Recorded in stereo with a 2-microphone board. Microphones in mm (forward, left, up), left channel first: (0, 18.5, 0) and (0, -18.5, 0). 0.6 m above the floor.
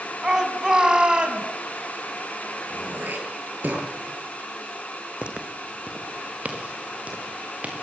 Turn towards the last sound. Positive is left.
turn(degrees=-45)  # may be behind; listen again after turning